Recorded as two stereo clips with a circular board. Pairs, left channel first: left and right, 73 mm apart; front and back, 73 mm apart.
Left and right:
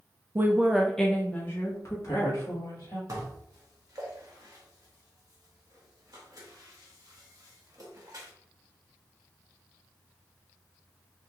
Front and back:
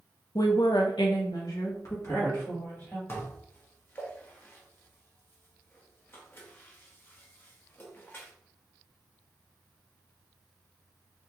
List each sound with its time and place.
0.3 s a woman speaking: 35° right, 0.6 m; by 3.0 s 55° left, 1.7 m
3.1 s dishes clattering: 55° right, 0.9 m